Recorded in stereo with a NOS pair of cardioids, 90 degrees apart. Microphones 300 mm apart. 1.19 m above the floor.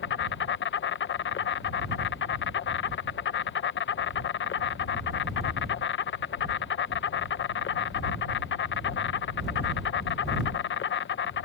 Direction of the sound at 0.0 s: 40° left.